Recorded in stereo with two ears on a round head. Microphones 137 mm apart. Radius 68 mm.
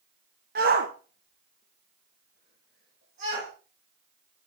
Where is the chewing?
I don't hear chewing.